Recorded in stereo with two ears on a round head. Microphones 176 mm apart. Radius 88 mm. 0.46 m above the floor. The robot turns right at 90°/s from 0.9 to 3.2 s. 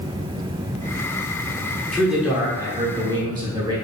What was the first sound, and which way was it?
A man speaking, 5° left (ahead or behind).